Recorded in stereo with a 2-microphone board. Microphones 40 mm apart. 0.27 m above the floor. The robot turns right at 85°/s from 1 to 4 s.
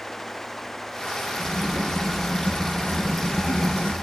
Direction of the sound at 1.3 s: 70° right.